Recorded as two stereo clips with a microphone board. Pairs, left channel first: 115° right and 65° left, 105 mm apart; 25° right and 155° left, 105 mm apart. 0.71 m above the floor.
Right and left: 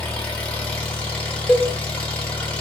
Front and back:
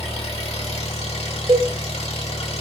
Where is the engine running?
35° right, 1.1 m.